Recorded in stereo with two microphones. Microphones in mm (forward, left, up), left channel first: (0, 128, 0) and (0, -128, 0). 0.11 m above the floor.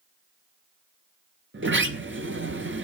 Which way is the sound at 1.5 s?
50° right (ahead or behind).